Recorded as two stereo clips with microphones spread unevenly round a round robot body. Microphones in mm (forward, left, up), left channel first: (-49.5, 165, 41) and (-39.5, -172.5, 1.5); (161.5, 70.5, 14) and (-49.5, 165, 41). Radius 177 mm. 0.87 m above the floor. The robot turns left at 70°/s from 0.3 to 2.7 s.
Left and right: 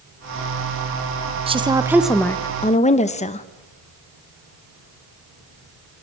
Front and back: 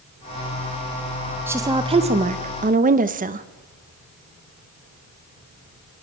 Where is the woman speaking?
120° right, 0.9 m; by 3.5 s 155° left, 0.9 m.